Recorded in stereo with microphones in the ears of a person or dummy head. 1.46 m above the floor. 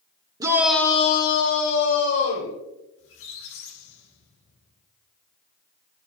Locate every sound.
0.4 s a shout: 15° right (ahead or behind), 0.8 m; by 2.5 s 60° left (ahead or behind), 1.8 m
3.0 s a squeak: 75° left (ahead or behind), 1.5 m